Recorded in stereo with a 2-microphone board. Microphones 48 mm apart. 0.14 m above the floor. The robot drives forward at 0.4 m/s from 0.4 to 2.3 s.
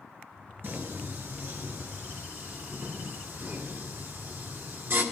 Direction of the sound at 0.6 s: 50° right (ahead or behind).